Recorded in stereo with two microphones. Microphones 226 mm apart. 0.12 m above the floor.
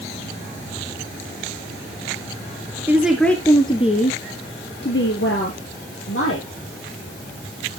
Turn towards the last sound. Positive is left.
turn(degrees=70)  # may be behind; listen again after turning